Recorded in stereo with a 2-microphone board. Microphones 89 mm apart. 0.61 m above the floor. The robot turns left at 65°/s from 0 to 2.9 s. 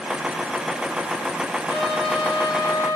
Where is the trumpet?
115° left, 5 m; by 3.0 s 35° left, 5 m.